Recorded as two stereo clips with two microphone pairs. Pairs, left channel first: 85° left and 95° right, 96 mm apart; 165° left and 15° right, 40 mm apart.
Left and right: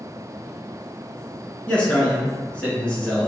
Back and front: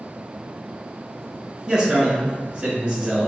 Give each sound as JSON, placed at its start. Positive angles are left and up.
{"t": 1.7, "sound": "a man speaking", "azimuth_deg": 15, "distance_m": 1.7}